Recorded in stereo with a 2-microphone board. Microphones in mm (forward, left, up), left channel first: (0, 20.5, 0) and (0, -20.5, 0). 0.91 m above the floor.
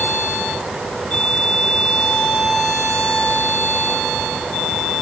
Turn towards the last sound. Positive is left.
No sound to turn to.